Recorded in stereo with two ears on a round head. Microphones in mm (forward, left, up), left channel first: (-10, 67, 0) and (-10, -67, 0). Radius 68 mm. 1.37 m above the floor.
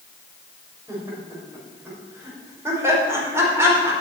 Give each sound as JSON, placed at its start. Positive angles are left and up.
{"t": 0.9, "sound": "laughter", "side_deg": -20, "distance_m": 6.0}